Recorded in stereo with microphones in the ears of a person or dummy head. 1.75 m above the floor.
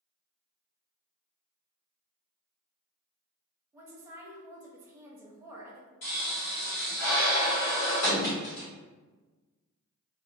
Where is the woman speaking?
15° right (ahead or behind), 0.6 m.